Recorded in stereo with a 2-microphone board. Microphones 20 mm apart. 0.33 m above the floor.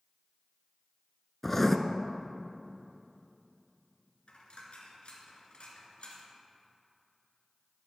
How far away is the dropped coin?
About 2 m.